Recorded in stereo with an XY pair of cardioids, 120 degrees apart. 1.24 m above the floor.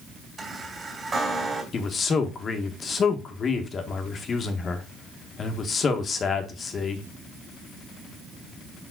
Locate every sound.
0.4 s a chime: 20° right, 2.5 m
1.7 s a man speaking: 40° left, 1.4 m